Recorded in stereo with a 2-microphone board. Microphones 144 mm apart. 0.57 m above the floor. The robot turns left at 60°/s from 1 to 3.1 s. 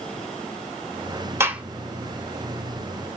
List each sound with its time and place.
1.4 s a gunshot: 20° right (ahead or behind), 0.8 m; by 1.6 s 5° right (ahead or behind), 0.8 m